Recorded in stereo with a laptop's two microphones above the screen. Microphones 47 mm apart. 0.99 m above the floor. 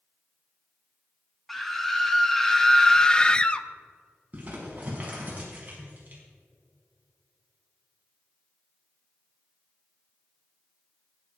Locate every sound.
1.5 s a scream: 5° left (ahead or behind), 1.9 m; by 3.7 s 20° left (ahead or behind), 0.5 m
4.3 s crumpling: 30° right (ahead or behind), 4.5 m